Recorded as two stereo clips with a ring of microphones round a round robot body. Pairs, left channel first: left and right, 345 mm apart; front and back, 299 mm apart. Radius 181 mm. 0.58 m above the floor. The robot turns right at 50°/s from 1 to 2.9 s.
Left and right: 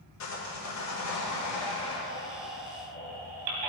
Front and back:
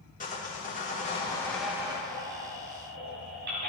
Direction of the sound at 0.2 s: 60° left.